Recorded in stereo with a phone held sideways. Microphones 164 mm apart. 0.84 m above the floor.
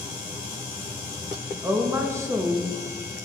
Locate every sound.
1.6 s a woman speaking: 15° right (ahead or behind), 0.7 m